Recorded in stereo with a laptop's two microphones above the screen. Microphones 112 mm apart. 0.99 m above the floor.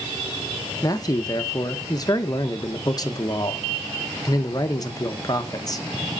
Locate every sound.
0.8 s a man speaking: 35° left (ahead or behind), 0.9 m